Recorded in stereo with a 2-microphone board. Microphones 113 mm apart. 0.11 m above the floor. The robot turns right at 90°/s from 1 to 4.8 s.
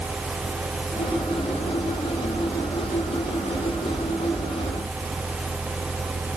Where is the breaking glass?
No breaking glass in this recording.